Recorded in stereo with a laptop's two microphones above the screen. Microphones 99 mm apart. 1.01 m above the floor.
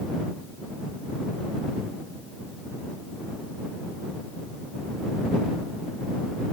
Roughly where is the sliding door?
I don't hear a sliding door.